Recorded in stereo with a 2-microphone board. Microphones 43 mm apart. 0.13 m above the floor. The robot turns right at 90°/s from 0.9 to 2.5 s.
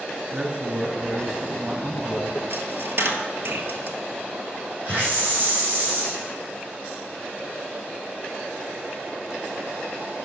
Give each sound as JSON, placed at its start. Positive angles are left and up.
{"t": 0.3, "sound": "a man speaking", "side_deg": -20, "distance_m": 1.5}
{"t": 2.5, "sound": "a dropped coin", "side_deg": -55, "distance_m": 1.2}
{"t": 4.8, "sound": "a hiss", "side_deg": -40, "distance_m": 5.0}